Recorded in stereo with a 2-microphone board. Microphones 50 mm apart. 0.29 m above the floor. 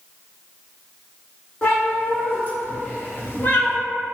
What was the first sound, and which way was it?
A cat meowing, 30° left (ahead or behind).